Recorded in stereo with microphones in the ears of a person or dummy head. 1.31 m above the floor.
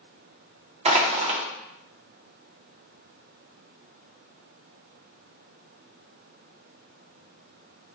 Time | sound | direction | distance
0.8 | crushing | 25° right (ahead or behind) | 0.6 m